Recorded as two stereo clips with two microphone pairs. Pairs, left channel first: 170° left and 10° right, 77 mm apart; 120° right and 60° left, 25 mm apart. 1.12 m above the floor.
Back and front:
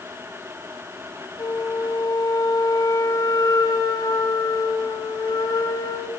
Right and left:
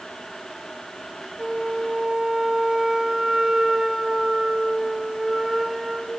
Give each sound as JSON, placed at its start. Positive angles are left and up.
{"t": 1.4, "sound": "a flute", "azimuth_deg": 140, "distance_m": 3.0}